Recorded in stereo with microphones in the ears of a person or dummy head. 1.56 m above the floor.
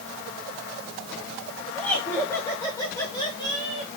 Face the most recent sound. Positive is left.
turn(degrees=25)  # may be behind; listen again after turning